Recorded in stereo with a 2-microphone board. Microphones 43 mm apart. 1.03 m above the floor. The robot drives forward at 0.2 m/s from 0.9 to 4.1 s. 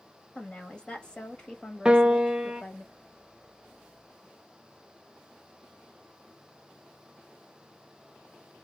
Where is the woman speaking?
25° left (ahead or behind), 1.4 m; by 2.9 s 30° left (ahead or behind), 1.1 m.